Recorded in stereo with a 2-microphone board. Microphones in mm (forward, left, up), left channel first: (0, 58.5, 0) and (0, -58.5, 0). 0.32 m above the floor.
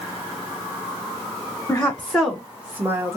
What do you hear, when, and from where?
1.7 s a woman speaking: 20° left (ahead or behind), 1.3 m; by 3.2 s 25° right (ahead or behind), 1.3 m